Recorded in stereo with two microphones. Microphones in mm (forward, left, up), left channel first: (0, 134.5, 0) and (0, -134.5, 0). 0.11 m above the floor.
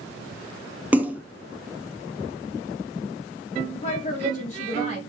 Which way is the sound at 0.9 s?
5° right (ahead or behind).